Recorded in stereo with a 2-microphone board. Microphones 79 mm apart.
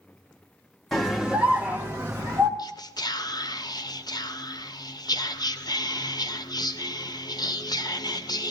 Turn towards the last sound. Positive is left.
turn(degrees=55)  # may be behind; listen again after turning